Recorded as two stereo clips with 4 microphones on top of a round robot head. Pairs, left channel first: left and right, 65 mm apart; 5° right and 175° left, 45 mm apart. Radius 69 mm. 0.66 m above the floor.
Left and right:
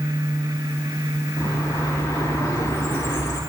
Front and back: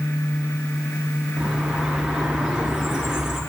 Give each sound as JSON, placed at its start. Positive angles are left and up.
{"t": 1.4, "sound": "a bird", "azimuth_deg": 95, "distance_m": 4.5}